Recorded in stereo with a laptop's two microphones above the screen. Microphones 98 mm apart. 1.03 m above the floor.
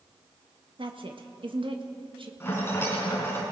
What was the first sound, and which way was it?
A woman speaking, 60° right (ahead or behind).